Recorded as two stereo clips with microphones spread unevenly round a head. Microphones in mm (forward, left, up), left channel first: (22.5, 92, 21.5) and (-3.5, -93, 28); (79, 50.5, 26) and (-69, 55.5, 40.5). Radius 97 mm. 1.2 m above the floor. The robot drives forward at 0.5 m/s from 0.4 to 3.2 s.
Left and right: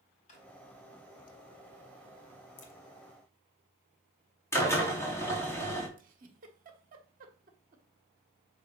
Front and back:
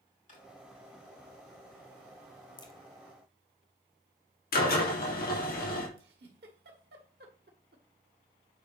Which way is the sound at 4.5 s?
5° left.